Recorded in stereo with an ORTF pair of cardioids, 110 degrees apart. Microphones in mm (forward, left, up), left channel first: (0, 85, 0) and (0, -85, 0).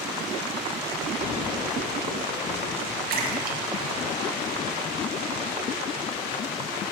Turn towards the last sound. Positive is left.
turn(degrees=-60)